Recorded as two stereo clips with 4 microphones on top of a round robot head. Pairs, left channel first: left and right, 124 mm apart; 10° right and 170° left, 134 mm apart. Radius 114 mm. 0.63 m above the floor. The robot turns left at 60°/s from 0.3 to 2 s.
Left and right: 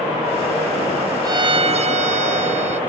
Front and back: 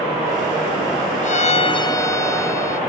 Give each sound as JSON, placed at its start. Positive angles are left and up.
{"t": 1.2, "sound": "a violin", "azimuth_deg": -30}